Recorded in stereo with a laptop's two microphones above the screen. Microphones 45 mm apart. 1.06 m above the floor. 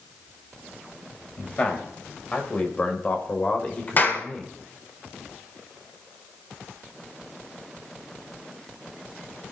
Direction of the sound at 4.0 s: 45° left (ahead or behind).